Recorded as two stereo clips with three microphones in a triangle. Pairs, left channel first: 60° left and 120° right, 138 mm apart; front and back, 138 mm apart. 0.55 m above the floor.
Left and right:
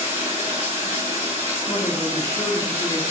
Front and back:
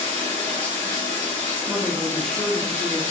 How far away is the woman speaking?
About 0.7 m.